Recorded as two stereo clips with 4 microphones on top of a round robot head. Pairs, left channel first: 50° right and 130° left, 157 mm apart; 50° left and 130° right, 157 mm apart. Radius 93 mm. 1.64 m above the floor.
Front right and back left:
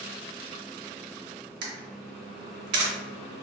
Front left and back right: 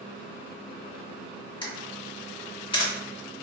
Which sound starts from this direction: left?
A camera shutter, at 1.6 s.